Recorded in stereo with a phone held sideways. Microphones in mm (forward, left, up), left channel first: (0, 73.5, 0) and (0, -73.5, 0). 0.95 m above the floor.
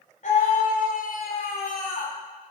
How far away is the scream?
About 3.5 m.